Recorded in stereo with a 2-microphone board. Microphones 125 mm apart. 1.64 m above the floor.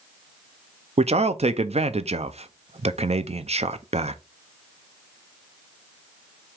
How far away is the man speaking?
About 0.5 m.